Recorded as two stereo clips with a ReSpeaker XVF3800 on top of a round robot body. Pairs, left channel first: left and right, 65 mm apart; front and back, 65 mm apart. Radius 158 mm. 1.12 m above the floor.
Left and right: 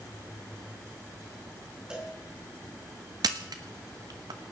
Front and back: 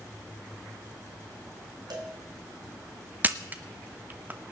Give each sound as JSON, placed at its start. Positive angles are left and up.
{"t": 1.9, "sound": "a cowbell", "azimuth_deg": -170, "distance_m": 2.5}
{"t": 3.2, "sound": "a camera shutter", "azimuth_deg": -120, "distance_m": 1.0}